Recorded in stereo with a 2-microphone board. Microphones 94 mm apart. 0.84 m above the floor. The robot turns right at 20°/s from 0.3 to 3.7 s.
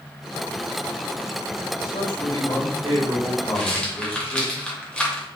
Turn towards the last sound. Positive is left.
turn(degrees=10)  # may be behind; listen again after turning